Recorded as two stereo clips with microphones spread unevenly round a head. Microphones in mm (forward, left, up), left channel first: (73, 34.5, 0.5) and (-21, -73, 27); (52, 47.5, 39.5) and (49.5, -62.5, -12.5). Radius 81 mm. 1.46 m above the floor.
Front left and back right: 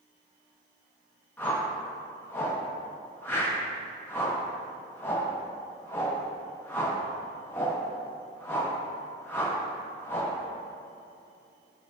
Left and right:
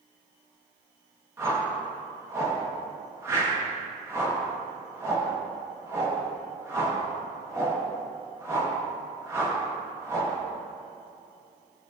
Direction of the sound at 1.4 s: 25° right.